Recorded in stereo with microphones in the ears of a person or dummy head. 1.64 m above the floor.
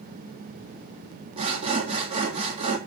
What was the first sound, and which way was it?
Sawing, 30° right (ahead or behind).